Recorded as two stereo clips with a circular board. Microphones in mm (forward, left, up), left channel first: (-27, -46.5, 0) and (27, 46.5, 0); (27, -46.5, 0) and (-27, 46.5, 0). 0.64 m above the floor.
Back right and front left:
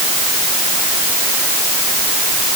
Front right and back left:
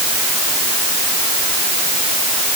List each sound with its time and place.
Only background noise.